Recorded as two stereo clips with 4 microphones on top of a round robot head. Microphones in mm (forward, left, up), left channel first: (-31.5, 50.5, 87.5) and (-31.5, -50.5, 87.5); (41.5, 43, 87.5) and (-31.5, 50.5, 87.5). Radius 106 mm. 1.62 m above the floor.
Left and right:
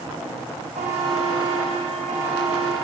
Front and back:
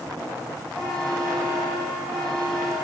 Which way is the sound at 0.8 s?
85° right.